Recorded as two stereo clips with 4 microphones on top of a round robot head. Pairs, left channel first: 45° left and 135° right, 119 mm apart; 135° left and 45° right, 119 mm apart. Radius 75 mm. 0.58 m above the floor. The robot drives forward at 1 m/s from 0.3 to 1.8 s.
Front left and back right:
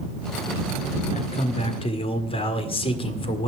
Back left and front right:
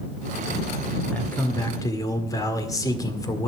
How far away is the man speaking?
About 2 m.